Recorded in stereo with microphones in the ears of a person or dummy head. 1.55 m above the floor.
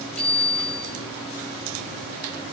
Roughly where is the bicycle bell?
Centre.